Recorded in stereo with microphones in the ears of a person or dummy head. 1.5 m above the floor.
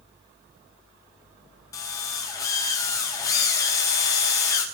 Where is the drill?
20° left (ahead or behind), 4.5 m.